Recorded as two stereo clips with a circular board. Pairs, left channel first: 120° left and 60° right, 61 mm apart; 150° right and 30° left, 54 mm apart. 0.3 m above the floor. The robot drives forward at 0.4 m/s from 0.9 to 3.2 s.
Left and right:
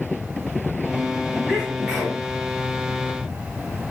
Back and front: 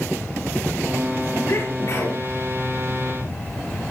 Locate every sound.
1.5 s a sneeze: 150° right, 5 m; by 2.2 s 155° right, 5.5 m